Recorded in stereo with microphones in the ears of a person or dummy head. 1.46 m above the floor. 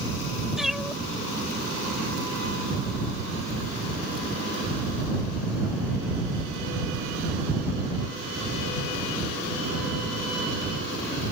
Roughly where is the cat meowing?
Centre.